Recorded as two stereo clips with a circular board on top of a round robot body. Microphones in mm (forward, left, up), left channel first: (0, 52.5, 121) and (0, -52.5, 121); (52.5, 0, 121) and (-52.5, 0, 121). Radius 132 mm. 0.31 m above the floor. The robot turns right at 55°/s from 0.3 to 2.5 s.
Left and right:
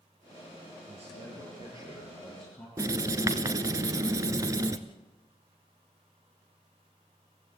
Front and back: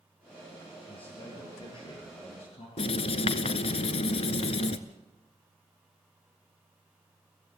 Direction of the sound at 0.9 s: 85° right.